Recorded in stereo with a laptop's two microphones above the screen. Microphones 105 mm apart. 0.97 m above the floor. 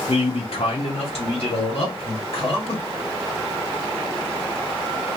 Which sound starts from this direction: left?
A man speaking, at 0.1 s.